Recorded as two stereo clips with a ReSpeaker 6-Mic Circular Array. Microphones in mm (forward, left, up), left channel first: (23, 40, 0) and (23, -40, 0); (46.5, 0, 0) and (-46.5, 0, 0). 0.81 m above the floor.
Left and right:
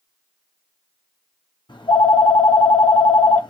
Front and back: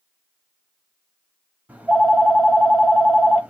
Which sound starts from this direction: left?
A phone ringing, at 1.7 s.